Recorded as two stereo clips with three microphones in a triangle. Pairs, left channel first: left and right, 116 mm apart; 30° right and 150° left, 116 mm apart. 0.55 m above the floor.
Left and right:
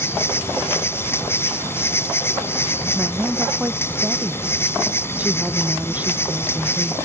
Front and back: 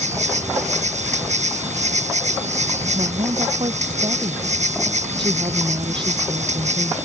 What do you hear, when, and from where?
0.0 s an insect: 160° left
3.0 s a woman speaking: 165° right